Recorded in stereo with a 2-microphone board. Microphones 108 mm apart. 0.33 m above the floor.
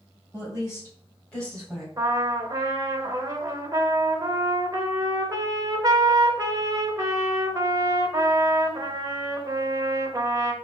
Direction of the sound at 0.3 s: 30° left (ahead or behind).